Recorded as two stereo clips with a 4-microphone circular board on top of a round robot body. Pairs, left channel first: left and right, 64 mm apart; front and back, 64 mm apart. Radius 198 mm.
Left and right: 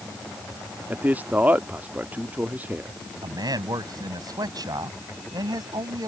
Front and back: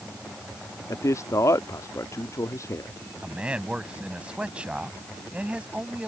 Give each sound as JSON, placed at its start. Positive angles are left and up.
{"t": 0.9, "sound": "a man speaking", "azimuth_deg": -30}
{"t": 3.2, "sound": "a man speaking", "azimuth_deg": -105}